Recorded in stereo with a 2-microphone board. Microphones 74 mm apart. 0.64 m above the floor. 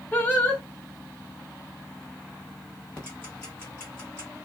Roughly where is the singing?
Left.